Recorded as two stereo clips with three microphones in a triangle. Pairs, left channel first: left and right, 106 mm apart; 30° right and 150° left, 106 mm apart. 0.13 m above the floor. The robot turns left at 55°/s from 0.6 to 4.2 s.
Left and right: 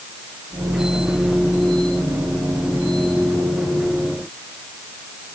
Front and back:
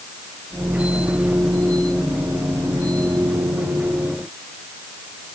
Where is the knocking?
I don't hear knocking.